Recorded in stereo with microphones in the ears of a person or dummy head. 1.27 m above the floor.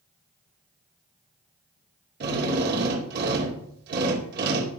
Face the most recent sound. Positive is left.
turn(degrees=-55)  # may be behind; listen again after turning